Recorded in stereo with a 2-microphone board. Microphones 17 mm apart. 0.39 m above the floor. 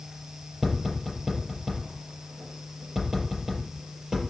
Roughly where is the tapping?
Right.